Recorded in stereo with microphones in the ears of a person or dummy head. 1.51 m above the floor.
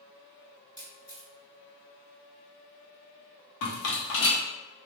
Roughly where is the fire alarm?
No fire alarm in this recording.